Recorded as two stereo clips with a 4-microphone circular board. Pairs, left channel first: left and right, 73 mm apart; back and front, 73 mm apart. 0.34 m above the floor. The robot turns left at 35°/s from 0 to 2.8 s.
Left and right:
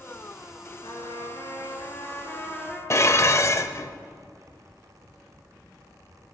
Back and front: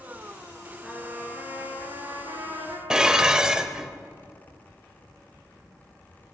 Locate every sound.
0.8 s a trumpet: 80° left, 3 m; by 2.8 s 10° left, 3 m
2.9 s dishes clattering: 75° left, 0.7 m